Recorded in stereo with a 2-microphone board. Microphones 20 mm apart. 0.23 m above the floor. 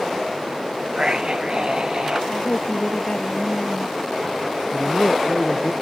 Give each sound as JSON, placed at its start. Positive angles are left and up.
{"t": 0.9, "sound": "a scream", "side_deg": -40}
{"t": 2.3, "sound": "a woman speaking", "side_deg": 65}
{"t": 4.7, "sound": "a man speaking", "side_deg": 55}